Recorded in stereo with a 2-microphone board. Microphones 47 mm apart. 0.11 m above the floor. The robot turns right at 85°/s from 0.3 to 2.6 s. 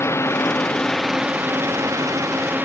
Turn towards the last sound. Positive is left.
turn(degrees=-40)  # may be behind; listen again after turning